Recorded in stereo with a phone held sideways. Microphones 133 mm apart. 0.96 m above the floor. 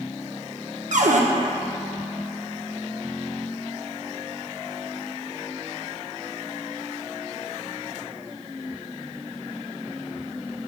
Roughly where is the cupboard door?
Right.